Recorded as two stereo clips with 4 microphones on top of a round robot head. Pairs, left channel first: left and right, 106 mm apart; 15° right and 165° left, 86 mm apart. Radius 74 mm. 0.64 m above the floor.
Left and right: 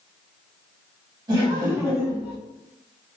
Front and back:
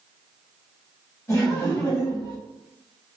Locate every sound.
1.3 s laughter: 55° right, 1.6 m; by 2.4 s 25° right, 1.5 m